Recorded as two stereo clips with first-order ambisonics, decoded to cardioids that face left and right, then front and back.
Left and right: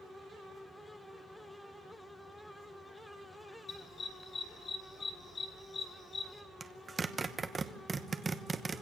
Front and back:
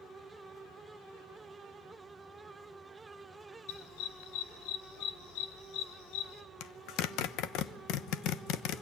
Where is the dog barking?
20° left, 2 m.